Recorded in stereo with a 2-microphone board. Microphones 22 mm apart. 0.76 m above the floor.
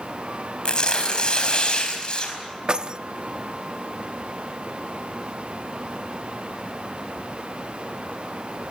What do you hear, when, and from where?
0.7 s tearing paper: 45° left (ahead or behind), 4.5 m
2.7 s keys jangling: 40° right (ahead or behind), 0.6 m